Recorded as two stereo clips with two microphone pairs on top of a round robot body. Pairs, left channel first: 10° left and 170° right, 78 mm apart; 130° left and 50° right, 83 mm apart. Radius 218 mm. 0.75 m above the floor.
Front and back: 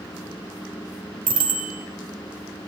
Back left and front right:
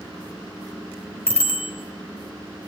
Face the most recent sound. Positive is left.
turn(degrees=-170)